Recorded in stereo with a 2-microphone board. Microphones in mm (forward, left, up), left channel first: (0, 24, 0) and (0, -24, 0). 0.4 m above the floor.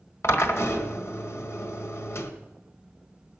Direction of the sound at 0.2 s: 60° left (ahead or behind).